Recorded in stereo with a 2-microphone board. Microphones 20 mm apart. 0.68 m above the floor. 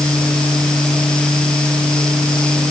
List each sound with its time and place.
Only background noise.